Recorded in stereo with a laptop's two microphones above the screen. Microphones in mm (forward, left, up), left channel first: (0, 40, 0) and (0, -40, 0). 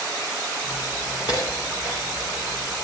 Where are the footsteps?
55° left (ahead or behind), 5.5 m; by 2.7 s 75° left (ahead or behind), 7 m.